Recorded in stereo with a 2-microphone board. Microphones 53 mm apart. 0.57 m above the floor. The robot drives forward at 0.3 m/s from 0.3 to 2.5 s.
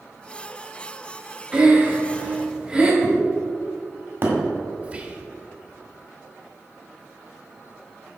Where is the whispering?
25° right (ahead or behind), 1.0 m.